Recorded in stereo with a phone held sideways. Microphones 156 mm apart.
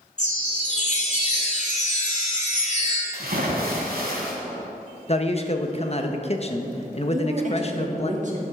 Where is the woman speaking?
50° right (ahead or behind), 2 m.